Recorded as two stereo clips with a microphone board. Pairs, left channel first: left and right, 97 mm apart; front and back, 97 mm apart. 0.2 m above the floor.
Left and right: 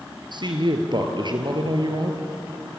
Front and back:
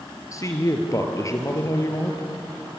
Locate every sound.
0.3 s a woman speaking: 55° right, 4 m